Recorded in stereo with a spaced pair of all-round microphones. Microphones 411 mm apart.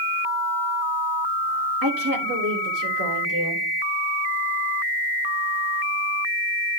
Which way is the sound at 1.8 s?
55° right (ahead or behind).